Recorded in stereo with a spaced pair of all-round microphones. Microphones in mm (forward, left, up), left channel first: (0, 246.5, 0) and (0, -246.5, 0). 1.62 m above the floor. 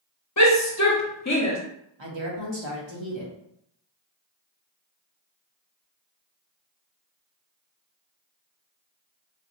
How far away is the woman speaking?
About 1.1 m.